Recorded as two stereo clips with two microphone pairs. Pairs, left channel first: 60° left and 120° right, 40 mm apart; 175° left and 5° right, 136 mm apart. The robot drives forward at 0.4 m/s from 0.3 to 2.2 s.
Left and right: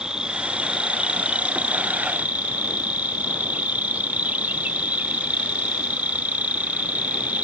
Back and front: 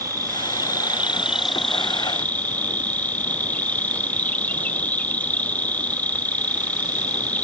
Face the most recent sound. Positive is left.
turn(degrees=-110)